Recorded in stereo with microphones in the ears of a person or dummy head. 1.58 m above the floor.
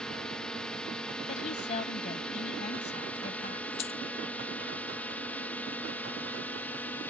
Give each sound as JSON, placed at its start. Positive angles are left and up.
{"t": 0.0, "sound": "a drone", "side_deg": 5}
{"t": 1.3, "sound": "a woman speaking", "side_deg": 35}
{"t": 3.8, "sound": "a dropped coin", "side_deg": 30}